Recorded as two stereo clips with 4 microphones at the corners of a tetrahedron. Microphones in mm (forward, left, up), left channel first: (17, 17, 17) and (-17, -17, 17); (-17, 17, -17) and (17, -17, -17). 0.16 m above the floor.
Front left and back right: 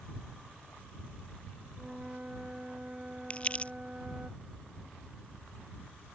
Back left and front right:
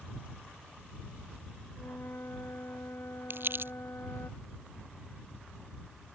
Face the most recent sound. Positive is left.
turn(degrees=-15)